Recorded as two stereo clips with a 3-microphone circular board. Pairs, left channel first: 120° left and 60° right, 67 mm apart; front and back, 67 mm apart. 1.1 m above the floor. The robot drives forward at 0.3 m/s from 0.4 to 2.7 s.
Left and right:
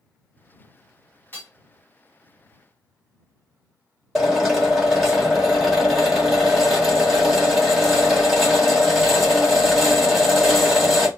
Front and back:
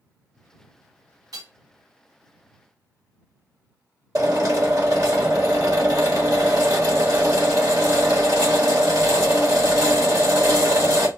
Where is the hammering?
Straight behind, 1.2 m.